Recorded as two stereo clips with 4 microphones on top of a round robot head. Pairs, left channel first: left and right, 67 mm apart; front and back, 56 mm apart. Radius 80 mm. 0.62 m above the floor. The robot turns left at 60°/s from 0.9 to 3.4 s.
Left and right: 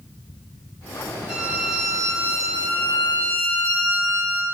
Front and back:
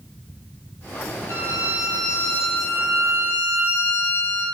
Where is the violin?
15° right, 1.7 m; by 4.5 s 140° right, 1.7 m.